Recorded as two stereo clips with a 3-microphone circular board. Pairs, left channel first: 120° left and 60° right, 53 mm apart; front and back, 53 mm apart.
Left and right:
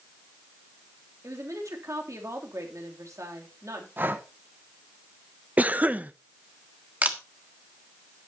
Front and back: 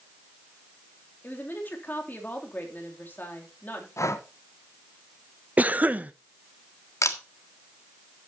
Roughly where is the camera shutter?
Ahead.